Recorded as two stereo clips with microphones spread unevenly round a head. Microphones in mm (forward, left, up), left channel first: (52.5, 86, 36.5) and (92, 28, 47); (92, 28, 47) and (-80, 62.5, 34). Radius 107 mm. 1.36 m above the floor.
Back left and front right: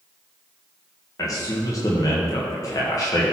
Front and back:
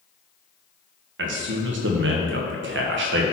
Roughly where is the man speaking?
Behind.